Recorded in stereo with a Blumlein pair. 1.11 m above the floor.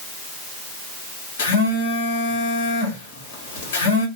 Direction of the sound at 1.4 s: 55° left.